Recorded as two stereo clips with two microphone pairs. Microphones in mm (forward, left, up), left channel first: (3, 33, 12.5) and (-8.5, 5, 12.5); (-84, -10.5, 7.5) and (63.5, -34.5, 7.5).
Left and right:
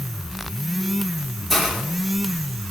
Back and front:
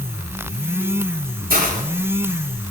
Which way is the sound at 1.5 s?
15° right.